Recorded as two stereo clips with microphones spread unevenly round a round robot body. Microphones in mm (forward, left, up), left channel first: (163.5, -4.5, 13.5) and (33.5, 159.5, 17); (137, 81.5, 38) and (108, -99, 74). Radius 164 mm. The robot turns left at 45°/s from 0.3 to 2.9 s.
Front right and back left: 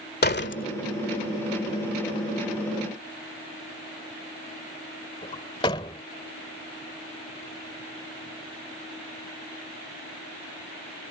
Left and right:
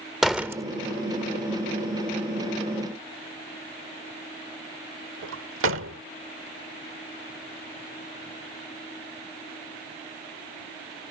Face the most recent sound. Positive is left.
turn(degrees=-125)